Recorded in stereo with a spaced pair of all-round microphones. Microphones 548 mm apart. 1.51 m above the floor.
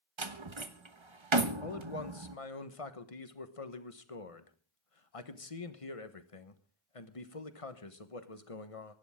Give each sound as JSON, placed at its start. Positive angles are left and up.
{"t": 0.2, "sound": "a door slam", "side_deg": -55, "distance_m": 1.2}
{"t": 1.6, "sound": "a man speaking", "side_deg": 75, "distance_m": 1.4}